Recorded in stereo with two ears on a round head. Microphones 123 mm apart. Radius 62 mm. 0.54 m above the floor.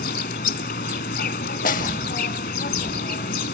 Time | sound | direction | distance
0.0 | an insect | 75° left (ahead or behind) | 1.3 m
1.6 | a snare drum | 65° left (ahead or behind) | 0.7 m